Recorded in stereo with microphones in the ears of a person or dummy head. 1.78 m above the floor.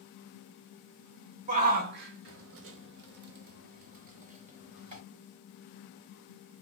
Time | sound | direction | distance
1.5 | a shout | 40° right (ahead or behind) | 0.7 m